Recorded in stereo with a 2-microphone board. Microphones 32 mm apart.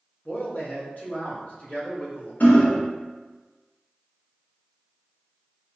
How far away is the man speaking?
About 0.9 m.